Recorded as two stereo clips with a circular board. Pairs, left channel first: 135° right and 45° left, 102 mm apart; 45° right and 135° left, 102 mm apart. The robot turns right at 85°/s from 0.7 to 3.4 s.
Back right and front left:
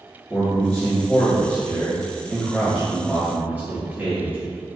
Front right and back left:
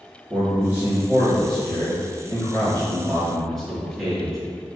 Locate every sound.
0.3 s a man speaking: 170° left, 1.1 m; by 4.4 s 40° left, 1.1 m